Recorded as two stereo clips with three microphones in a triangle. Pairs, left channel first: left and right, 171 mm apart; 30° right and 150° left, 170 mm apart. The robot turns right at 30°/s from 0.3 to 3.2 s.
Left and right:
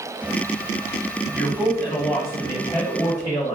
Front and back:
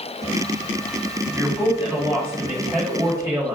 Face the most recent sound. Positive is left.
turn(degrees=125)